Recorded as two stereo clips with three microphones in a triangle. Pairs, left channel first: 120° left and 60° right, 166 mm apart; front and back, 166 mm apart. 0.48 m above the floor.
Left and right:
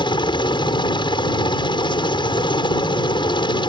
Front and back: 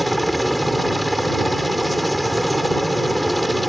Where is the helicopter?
90° left.